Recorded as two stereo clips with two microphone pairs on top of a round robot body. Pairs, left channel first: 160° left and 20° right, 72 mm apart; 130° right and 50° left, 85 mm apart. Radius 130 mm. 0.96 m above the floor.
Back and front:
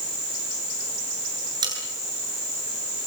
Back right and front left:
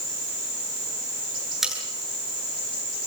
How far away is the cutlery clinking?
About 8.5 m.